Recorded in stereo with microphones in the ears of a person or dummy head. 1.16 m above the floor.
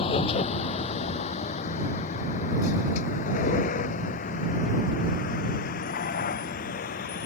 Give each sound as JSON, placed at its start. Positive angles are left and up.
{"t": 0.0, "sound": "a vehicle", "side_deg": 35}